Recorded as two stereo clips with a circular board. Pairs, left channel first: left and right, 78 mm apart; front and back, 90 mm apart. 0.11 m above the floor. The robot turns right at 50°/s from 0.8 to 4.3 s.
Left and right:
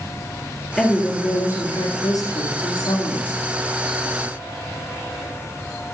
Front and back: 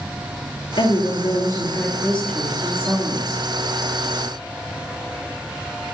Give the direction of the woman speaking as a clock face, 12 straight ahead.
12 o'clock.